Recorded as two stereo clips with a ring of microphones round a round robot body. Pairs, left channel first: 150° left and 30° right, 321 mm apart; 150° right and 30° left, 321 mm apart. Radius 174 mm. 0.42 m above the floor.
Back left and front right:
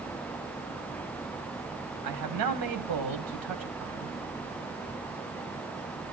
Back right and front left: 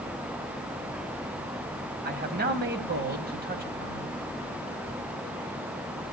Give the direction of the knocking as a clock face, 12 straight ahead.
I don't hear knocking.